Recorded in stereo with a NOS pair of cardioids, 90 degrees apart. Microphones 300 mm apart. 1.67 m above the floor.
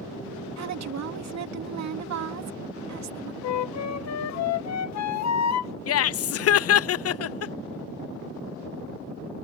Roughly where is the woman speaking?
Ahead right.